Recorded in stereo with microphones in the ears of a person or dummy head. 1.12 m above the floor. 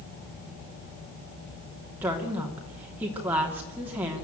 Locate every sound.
2.0 s a woman speaking: 15° right (ahead or behind), 2.5 m